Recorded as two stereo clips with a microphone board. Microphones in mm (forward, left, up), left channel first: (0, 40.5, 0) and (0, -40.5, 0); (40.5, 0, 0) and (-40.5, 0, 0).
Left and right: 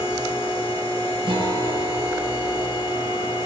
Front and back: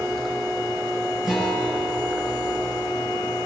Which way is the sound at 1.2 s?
95° right.